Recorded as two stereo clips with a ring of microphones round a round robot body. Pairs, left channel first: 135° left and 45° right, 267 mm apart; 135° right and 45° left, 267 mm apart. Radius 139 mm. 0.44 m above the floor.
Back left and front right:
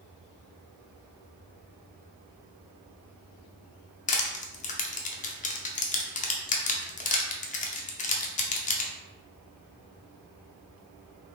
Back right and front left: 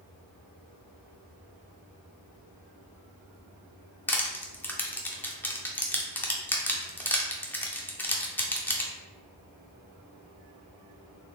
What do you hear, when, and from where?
4.1 s crushing: 150° left, 0.6 m